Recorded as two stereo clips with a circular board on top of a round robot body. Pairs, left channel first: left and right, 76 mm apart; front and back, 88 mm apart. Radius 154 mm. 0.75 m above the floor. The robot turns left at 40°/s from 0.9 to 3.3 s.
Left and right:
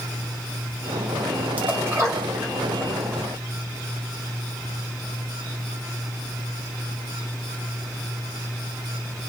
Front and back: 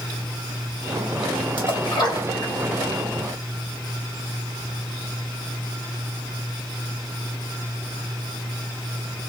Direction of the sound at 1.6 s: 20° right.